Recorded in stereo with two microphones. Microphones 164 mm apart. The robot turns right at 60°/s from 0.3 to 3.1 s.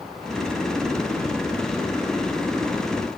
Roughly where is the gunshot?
No gunshot in this recording.